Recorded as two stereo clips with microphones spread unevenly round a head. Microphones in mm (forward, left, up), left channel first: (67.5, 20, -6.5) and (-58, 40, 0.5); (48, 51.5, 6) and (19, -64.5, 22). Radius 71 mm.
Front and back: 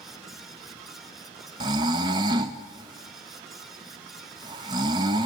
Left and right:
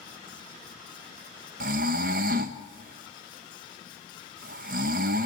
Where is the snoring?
130° right, 0.7 m.